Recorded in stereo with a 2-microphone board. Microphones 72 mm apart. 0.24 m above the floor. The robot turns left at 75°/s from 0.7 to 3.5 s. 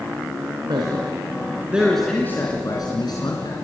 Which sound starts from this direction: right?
A man speaking, at 0.7 s.